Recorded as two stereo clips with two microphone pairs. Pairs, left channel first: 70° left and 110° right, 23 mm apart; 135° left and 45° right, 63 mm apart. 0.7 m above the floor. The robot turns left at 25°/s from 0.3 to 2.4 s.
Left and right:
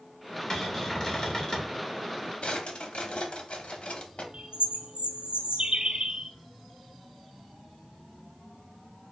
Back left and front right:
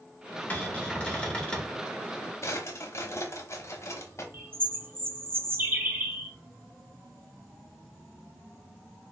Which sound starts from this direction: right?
A bird, at 4.3 s.